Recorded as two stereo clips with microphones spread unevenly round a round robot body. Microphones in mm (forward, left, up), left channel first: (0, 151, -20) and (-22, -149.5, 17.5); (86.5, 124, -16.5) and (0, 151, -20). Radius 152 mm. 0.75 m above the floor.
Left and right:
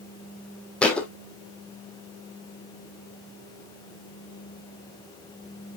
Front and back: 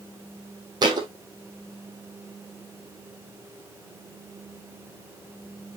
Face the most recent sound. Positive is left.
turn(degrees=180)